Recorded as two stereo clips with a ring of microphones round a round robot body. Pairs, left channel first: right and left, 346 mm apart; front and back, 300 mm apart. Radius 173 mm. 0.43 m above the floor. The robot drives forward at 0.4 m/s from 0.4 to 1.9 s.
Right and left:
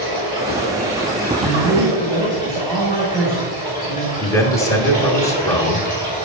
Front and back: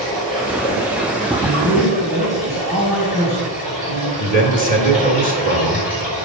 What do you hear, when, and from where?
0.0 s running water: 155° right, 4.5 m; by 6.3 s 160° right, 5 m
1.4 s a man speaking: straight behind, 3 m
4.2 s a man speaking: 160° right, 1.3 m